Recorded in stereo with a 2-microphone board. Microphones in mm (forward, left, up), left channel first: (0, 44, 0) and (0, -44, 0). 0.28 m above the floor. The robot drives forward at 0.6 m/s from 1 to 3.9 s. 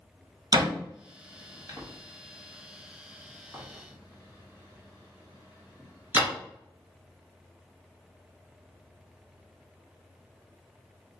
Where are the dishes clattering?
I don't hear dishes clattering.